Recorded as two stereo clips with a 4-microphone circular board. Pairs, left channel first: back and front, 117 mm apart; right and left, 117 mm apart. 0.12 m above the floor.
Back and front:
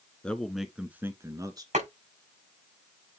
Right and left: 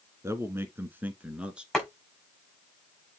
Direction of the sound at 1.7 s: Straight ahead.